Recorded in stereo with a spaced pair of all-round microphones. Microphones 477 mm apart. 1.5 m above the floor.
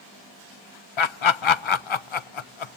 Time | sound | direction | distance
1.0 | laughter | 75° left (ahead or behind) | 0.6 m